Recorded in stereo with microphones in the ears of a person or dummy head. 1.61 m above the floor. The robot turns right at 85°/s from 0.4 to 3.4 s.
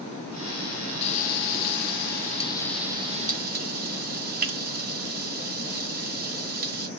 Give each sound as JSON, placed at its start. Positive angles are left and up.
{"t": 1.0, "sound": "frying", "side_deg": 30, "distance_m": 0.9}